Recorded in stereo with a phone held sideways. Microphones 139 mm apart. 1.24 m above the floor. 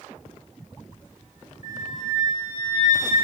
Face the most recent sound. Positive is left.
turn(degrees=65)  # may be behind; listen again after turning